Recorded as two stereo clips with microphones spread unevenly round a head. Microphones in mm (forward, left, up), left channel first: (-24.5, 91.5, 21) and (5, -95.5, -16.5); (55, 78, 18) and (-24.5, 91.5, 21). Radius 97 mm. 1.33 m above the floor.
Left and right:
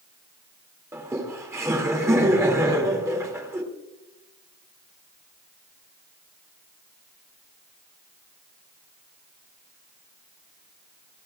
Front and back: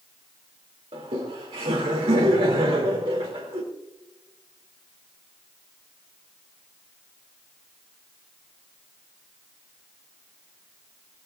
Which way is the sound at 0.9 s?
160° right.